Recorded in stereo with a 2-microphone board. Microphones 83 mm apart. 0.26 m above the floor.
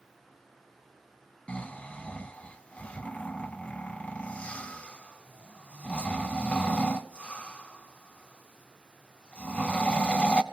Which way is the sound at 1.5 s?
15° left (ahead or behind).